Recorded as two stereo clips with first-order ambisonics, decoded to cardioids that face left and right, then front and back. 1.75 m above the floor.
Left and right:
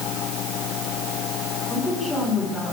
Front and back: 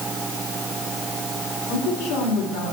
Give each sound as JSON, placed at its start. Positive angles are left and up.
{"t": 1.7, "sound": "a woman speaking", "azimuth_deg": 5, "distance_m": 6.0}